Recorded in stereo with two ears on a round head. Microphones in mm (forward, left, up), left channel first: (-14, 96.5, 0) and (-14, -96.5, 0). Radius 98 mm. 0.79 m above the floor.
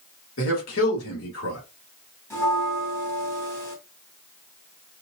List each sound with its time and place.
0.4 s a man speaking: 65° left (ahead or behind), 2.5 m
2.3 s a bell: 15° left (ahead or behind), 1.5 m